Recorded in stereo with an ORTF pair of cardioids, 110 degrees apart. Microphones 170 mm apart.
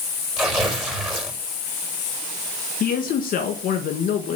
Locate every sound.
0.4 s tearing paper: 5° right, 4.5 m
2.8 s a man speaking: 60° left, 1.6 m